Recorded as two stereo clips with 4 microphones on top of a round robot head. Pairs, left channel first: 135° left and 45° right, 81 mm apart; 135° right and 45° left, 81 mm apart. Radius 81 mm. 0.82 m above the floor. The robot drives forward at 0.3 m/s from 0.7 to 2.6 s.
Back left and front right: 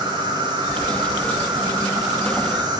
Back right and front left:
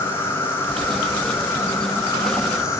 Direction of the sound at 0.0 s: 75° right.